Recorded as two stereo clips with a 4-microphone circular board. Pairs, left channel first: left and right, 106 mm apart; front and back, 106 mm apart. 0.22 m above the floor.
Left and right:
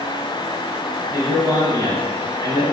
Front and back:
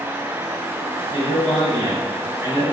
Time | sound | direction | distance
1.1 | a man speaking | 130° left | 2 m